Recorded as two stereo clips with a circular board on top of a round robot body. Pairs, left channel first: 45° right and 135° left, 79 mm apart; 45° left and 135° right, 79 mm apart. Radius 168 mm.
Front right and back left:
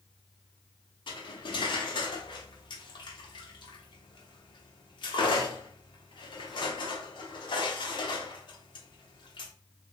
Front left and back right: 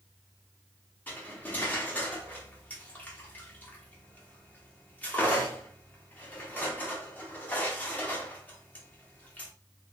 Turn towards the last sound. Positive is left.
turn(degrees=-25)